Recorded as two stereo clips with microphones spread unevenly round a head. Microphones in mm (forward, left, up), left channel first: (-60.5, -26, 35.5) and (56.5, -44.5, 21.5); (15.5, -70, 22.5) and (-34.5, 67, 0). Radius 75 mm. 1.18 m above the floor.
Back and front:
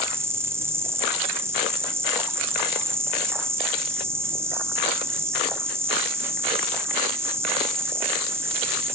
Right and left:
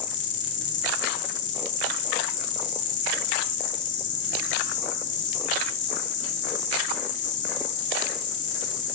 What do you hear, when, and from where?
0.0 s an insect: 80° right, 1.9 m